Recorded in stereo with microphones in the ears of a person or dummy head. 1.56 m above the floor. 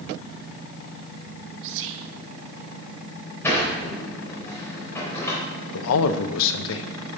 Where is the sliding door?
10° left (ahead or behind), 3.5 m.